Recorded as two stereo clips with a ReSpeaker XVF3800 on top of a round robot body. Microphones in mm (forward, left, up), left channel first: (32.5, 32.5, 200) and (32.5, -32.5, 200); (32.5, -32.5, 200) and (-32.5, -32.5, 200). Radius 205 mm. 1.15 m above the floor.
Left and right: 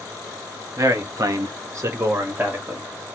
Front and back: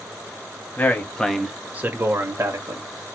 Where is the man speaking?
55° right, 1.1 m; by 2.9 s 160° right, 1.4 m.